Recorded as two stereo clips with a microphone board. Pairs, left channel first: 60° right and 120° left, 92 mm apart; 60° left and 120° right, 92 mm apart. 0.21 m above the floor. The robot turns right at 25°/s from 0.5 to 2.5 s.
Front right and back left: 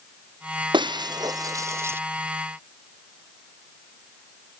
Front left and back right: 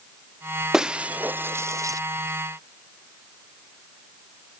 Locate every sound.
0.7 s breaking glass: 155° left; by 2.0 s 175° right